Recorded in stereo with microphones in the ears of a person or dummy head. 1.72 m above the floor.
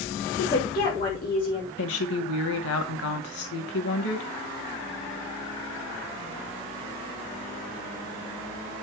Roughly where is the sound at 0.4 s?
Left.